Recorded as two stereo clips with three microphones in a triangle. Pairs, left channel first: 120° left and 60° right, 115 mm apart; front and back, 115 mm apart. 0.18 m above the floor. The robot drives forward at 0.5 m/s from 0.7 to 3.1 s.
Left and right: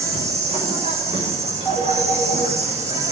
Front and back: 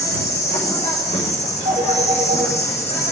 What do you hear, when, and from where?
0.0 s an insect: 25° right, 7.5 m; by 3.1 s 30° right, 6.5 m
1.6 s a phone ringing: 160° right, 9.5 m